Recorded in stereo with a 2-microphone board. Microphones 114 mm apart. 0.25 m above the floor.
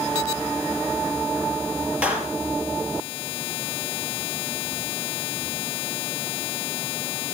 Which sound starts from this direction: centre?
A clap, at 2.0 s.